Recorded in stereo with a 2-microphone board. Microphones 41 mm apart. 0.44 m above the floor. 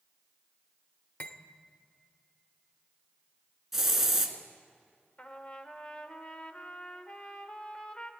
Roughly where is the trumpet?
Left.